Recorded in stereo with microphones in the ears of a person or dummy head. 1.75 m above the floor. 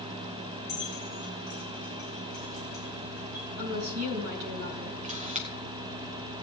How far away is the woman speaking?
About 3 m.